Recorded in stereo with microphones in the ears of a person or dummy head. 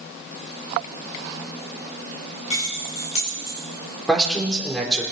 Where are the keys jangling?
40° left (ahead or behind), 3.5 m.